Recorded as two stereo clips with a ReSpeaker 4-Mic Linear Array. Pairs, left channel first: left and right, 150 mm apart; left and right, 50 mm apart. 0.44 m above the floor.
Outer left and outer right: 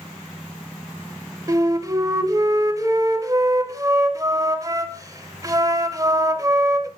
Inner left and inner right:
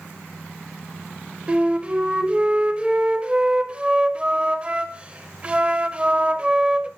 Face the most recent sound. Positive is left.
turn(degrees=-25)  # may be behind; listen again after turning